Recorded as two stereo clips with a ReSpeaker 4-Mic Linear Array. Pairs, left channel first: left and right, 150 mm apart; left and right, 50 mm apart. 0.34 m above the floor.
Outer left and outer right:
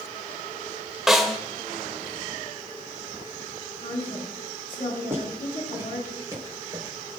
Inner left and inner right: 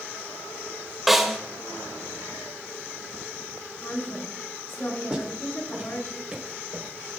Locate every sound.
1.1 s a snare drum: centre (ahead or behind), 1.4 m
3.8 s a woman speaking: 70° left (ahead or behind), 4.5 m
5.1 s footsteps: 15° right (ahead or behind), 6 m; by 7.2 s 30° right (ahead or behind), 4.5 m